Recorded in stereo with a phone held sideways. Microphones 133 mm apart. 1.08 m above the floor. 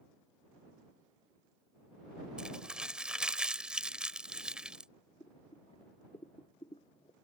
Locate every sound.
2.4 s crumpling: 5° right (ahead or behind)
5.2 s boiling: 40° left (ahead or behind)